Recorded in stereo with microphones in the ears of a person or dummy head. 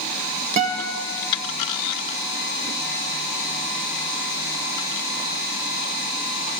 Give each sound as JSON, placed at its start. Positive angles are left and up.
{"t": 0.6, "sound": "a guitar", "side_deg": -40, "distance_m": 0.8}